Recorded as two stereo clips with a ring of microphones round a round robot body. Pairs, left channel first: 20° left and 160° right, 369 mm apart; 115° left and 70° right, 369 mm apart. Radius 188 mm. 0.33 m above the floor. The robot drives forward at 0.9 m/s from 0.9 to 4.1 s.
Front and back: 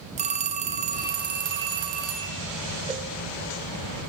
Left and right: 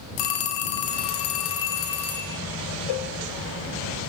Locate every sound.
0.2 s a phone ringing: 130° left, 1.6 m; by 2.4 s 155° left, 2.5 m
2.9 s a cowbell: 125° left, 0.7 m; by 3.1 s 135° left, 0.9 m